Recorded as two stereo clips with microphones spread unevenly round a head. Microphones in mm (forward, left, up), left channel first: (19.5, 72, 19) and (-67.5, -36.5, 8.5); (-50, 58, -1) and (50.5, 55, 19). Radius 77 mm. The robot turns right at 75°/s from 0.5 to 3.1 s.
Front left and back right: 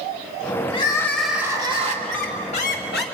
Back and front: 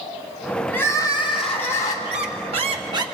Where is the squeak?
35° right, 1.7 m; by 3.0 s 40° left, 1.7 m.